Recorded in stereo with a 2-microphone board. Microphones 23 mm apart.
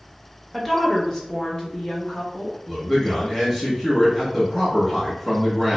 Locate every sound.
0.5 s a woman speaking: 5° left (ahead or behind), 0.7 m; by 2.6 s 45° left (ahead or behind), 1.2 m
2.7 s a man speaking: centre (ahead or behind), 0.9 m